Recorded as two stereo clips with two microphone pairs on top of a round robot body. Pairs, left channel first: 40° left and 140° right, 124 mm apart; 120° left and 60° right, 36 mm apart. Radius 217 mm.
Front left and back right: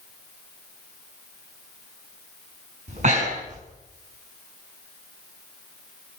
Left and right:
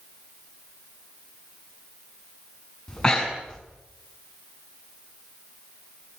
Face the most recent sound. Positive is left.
turn(degrees=-165)